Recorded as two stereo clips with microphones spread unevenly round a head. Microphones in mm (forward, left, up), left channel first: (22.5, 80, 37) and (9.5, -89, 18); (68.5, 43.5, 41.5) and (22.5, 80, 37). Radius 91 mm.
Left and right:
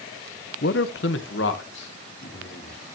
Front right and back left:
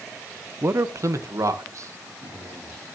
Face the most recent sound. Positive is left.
turn(degrees=115)